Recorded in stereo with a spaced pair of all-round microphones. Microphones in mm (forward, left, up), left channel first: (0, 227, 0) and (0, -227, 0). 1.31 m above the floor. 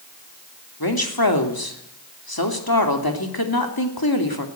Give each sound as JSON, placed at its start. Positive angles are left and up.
{"t": 0.8, "sound": "a woman speaking", "side_deg": 50, "distance_m": 2.5}